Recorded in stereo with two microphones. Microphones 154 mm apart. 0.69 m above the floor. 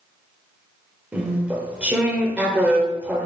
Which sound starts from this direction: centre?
Chewing, at 1.1 s.